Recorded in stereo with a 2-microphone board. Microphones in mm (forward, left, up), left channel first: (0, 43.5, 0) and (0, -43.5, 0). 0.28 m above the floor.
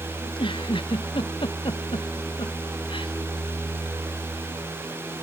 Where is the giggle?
70° left (ahead or behind).